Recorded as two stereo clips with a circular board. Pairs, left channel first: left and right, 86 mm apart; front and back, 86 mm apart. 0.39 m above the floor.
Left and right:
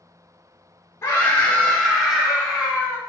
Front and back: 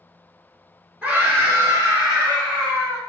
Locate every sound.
1.0 s a scream: 125° left, 1.1 m; by 3.0 s 155° right, 1.9 m